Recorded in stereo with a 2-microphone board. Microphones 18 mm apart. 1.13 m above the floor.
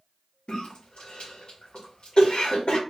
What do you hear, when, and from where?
0.5 s a cough: 75° left (ahead or behind), 0.9 m